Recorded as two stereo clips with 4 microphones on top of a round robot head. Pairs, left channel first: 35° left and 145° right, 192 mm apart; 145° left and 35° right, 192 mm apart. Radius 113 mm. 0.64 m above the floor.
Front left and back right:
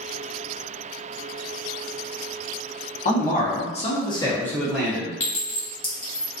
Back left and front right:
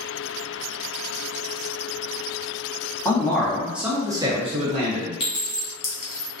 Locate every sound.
3.0 s a man speaking: 70° left, 1.2 m; by 5.1 s 65° right, 1.1 m
5.2 s a clink: 115° left, 1.4 m